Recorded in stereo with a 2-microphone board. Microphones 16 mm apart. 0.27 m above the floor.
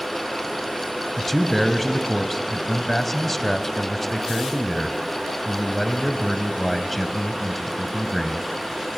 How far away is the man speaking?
About 1.5 m.